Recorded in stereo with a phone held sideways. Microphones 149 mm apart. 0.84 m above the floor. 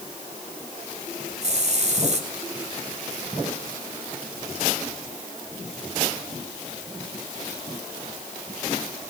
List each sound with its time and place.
1.4 s a hiss: 50° right (ahead or behind), 2.5 m